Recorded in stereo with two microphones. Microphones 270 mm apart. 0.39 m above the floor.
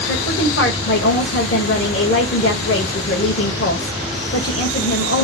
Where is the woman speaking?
50° left (ahead or behind), 1.7 m.